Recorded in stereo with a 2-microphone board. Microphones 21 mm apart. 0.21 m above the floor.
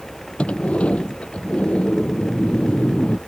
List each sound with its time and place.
0.4 s a sliding door: 75° left (ahead or behind)